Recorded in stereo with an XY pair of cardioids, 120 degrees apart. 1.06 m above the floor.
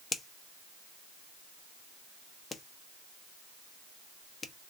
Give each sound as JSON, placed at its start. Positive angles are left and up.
{"t": 0.1, "sound": "a finger snap", "azimuth_deg": 25, "distance_m": 0.9}